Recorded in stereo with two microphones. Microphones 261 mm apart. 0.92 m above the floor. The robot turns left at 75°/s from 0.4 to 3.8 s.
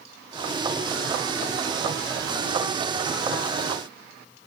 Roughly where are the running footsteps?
No running footsteps in this recording.